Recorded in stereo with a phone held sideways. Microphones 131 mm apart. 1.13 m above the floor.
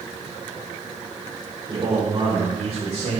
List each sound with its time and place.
1.7 s a man speaking: 35° right (ahead or behind), 3.5 m; by 3.2 s 60° right (ahead or behind), 4.5 m